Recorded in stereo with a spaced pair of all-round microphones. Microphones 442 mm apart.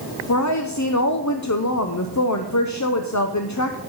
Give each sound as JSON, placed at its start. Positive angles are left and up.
{"t": 0.3, "sound": "a woman speaking", "side_deg": 40, "distance_m": 0.7}